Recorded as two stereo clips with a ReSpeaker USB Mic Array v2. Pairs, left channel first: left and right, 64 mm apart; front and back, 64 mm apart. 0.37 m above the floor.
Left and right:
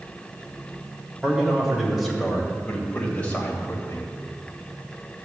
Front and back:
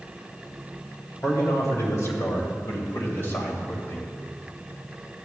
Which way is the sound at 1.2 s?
15° right.